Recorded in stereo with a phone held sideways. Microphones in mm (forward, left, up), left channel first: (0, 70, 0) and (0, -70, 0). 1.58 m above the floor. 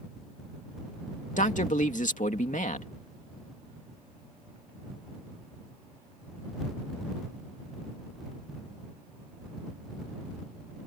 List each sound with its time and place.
1.4 s a man speaking: 70° left (ahead or behind)